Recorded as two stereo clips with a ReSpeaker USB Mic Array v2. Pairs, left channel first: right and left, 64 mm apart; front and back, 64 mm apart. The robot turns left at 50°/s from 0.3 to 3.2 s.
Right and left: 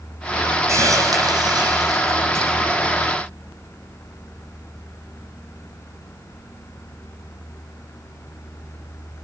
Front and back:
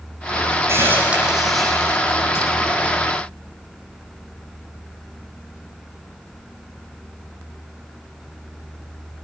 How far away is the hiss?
About 9.5 m.